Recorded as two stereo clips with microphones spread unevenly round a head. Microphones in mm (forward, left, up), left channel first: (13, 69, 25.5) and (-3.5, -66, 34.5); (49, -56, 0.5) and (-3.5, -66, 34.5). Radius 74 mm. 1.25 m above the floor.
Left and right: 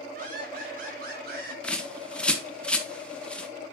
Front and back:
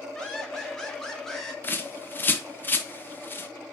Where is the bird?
5° left, 1.3 m.